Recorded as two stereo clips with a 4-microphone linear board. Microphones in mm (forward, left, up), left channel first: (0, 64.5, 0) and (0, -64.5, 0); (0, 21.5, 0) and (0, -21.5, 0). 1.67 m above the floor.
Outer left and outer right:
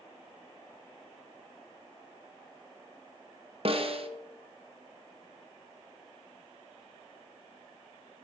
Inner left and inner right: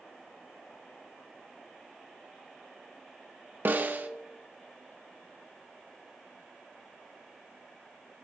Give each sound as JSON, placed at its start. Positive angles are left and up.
{"t": 3.6, "sound": "a snare drum", "side_deg": -50, "distance_m": 1.0}